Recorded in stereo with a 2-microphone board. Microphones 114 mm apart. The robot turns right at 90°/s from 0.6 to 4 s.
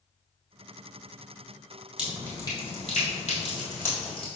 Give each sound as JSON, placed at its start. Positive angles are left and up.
{"t": 2.0, "sound": "dripping", "side_deg": -10, "distance_m": 1.6}